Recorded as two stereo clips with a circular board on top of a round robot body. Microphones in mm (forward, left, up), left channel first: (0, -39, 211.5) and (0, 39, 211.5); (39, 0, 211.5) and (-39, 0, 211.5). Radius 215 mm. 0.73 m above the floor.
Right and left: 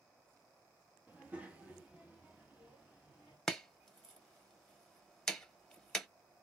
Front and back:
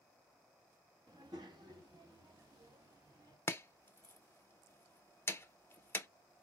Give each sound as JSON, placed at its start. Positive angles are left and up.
{"t": 1.1, "sound": "a child speaking", "azimuth_deg": 160, "distance_m": 1.2}
{"t": 3.5, "sound": "chopping", "azimuth_deg": -15, "distance_m": 1.0}